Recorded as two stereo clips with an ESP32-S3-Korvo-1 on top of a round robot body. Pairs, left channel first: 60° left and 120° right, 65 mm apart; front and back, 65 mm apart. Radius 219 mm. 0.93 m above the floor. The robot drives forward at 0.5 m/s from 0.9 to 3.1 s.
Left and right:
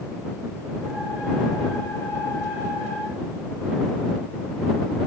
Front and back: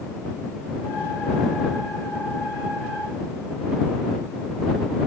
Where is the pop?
I don't hear a pop.